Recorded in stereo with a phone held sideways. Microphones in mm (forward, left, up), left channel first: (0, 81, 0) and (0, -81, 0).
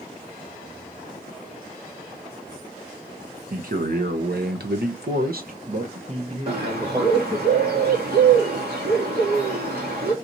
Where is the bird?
85° right, 1.9 m.